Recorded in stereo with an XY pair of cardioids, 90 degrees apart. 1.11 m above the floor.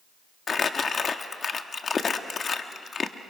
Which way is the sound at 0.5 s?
45° left.